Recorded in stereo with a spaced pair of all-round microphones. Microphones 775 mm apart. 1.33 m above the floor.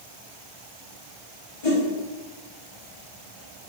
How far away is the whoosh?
About 1.1 m.